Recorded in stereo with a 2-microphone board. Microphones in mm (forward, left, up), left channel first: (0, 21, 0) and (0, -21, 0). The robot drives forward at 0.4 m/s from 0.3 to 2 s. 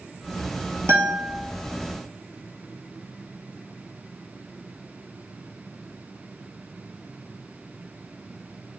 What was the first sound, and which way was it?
A guitar, 80° right.